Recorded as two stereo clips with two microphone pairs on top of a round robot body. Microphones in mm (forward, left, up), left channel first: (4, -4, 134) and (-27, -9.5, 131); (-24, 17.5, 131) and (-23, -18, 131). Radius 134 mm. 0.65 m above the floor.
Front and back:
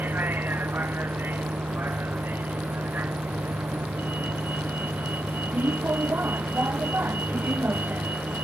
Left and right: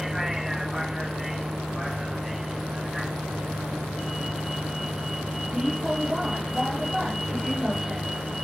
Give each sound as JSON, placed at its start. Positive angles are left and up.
{"t": 0.0, "sound": "a vehicle", "azimuth_deg": -165}